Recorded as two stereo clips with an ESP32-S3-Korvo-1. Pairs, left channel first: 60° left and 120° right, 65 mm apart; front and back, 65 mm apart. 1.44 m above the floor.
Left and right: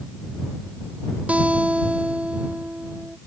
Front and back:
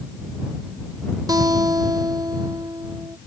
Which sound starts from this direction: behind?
A guitar, at 1.3 s.